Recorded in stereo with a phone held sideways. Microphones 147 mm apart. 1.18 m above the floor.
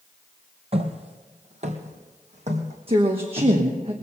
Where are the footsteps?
40° right (ahead or behind), 1.5 m; by 3.5 s 50° right (ahead or behind), 3.5 m.